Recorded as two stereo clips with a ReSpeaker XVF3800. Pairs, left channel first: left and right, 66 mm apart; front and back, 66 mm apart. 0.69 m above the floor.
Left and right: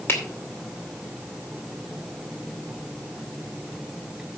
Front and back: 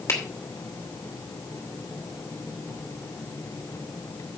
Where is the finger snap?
40° left, 2.5 m.